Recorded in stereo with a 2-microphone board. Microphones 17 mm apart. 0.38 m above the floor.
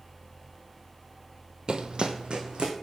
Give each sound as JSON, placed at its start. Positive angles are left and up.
{"t": 1.7, "sound": "running footsteps", "side_deg": -55, "distance_m": 0.5}